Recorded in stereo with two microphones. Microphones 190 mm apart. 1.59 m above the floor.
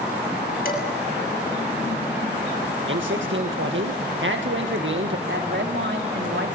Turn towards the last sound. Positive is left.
turn(degrees=-75)  # may be behind; listen again after turning